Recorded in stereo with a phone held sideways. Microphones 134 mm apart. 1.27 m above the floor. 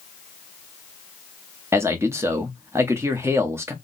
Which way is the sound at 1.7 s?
20° right (ahead or behind).